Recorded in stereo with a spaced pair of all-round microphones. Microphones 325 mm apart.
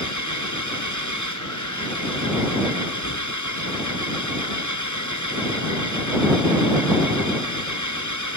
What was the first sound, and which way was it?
An engine running, 60° left (ahead or behind).